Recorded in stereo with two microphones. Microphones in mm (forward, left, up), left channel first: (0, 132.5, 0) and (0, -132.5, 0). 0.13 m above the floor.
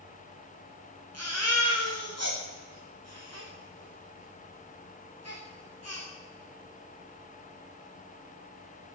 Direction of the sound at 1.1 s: 70° right (ahead or behind).